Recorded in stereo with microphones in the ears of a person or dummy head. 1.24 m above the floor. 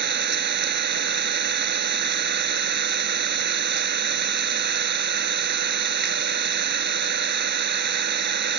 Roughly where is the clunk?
I don't hear a clunk.